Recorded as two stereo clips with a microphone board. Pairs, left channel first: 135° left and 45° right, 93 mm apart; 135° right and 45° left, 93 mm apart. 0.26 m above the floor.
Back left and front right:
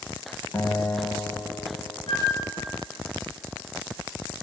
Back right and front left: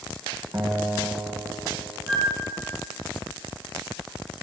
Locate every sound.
0.5 s a guitar: 85° left, 0.6 m
2.1 s a flute: 125° left, 2 m